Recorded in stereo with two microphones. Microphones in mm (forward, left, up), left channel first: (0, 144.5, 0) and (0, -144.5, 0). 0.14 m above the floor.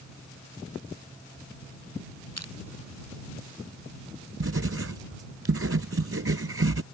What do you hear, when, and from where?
2.4 s crushing: 60° left (ahead or behind)
4.4 s writing: 50° right (ahead or behind)